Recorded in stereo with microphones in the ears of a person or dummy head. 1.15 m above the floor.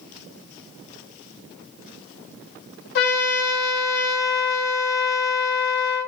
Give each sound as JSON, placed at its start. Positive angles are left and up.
{"t": 3.0, "sound": "a trumpet", "side_deg": 65, "distance_m": 0.6}